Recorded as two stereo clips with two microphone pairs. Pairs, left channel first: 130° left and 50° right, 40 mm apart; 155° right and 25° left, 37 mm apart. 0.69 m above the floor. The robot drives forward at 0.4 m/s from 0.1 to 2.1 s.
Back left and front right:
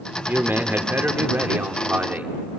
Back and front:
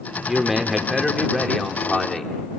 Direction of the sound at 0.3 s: 55° right.